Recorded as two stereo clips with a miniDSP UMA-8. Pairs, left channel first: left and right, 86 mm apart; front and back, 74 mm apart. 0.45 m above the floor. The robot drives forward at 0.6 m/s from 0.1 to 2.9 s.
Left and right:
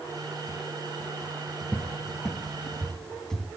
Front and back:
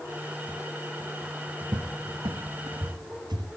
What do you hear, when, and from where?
1.7 s a cupboard door: 165° left, 0.8 m; by 3.5 s 175° left, 1.5 m